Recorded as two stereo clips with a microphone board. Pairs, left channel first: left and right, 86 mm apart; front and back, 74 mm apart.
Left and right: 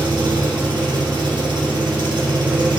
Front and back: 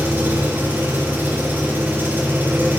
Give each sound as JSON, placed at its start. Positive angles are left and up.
{"t": 0.0, "sound": "an engine running", "azimuth_deg": -115, "distance_m": 3.5}